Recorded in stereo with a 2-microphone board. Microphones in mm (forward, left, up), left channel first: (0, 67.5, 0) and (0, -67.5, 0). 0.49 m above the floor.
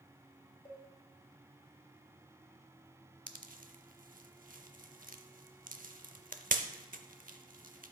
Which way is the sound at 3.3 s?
75° right (ahead or behind).